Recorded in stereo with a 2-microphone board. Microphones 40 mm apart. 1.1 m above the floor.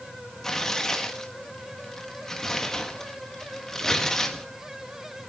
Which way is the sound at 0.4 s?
15° left (ahead or behind).